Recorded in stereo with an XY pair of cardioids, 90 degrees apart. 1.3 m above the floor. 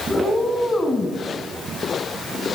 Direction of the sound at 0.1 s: 40° left.